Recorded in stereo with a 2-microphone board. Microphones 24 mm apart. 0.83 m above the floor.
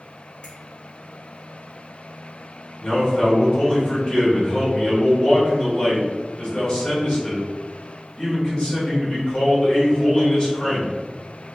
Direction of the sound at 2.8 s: 35° left (ahead or behind).